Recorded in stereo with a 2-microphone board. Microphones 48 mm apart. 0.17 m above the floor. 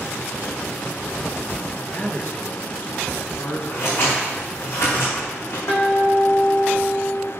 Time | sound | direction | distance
1.7 | a man speaking | 50° left (ahead or behind) | 2.5 m
3.7 | scissors | 75° left (ahead or behind) | 4 m
5.7 | a guitar | 60° left (ahead or behind) | 3 m